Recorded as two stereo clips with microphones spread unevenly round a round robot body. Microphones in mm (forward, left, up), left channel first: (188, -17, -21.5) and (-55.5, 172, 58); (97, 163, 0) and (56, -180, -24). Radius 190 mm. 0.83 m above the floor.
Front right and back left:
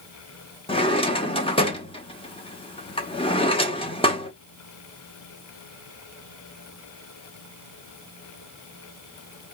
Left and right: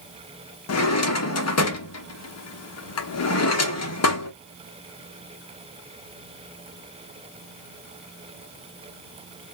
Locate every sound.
0.7 s a drawer: 35° left, 1.0 m